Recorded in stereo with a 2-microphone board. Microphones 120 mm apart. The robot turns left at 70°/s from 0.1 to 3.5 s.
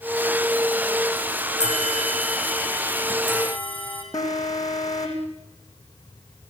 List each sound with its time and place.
1.6 s a bell: 115° left, 4.5 m; by 4.0 s 15° right, 4.5 m
4.1 s an alarm: 30° left (ahead or behind), 4 m